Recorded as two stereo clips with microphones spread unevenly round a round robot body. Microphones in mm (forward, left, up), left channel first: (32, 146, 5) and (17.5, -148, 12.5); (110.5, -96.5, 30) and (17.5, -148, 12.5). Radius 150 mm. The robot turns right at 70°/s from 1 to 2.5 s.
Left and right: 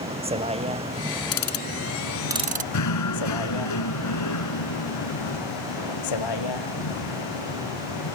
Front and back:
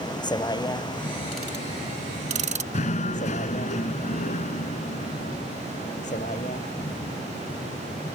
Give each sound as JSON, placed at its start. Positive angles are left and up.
{"t": 0.0, "sound": "a vehicle", "azimuth_deg": -20}
{"t": 1.3, "sound": "ticking", "azimuth_deg": 115}
{"t": 2.7, "sound": "knocking", "azimuth_deg": 55}